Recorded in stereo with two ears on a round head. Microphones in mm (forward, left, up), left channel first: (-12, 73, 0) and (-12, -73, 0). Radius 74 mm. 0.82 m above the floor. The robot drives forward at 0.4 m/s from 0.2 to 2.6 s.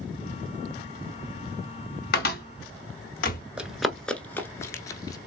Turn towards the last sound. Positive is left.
turn(degrees=25)  # may be behind; listen again after turning